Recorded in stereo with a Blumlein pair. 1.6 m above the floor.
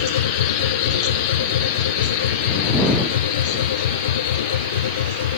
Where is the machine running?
60° left.